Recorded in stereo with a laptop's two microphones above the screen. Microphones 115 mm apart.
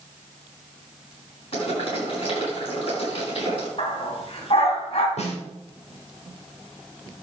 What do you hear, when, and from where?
1.5 s boiling: 55° left (ahead or behind), 7 m
3.8 s a dog barking: 60° left (ahead or behind), 2.5 m
5.2 s a snare drum: 75° left (ahead or behind), 4 m